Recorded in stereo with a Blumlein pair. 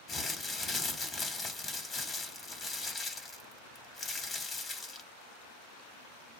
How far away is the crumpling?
About 1.2 m.